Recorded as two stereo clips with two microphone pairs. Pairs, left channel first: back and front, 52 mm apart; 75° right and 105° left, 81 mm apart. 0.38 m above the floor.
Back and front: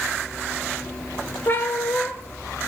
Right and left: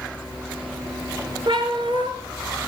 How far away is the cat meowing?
About 2 m.